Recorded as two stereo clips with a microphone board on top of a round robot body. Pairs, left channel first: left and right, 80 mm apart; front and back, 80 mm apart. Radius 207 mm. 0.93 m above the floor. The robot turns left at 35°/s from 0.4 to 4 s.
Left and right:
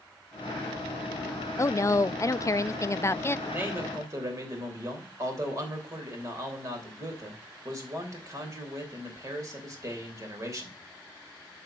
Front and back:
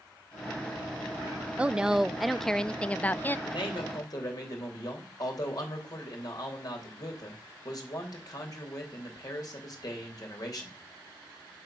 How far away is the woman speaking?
About 0.5 m.